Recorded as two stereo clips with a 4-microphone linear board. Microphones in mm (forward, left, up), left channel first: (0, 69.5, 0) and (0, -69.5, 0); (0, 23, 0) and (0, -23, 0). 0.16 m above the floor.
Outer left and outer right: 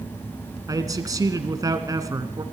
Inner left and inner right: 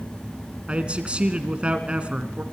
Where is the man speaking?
25° right (ahead or behind), 2 m.